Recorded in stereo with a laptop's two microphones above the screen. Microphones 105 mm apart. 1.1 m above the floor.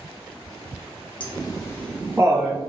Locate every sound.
1.2 s laughter: 55° left (ahead or behind), 1.0 m; by 2.6 s 50° right (ahead or behind), 0.9 m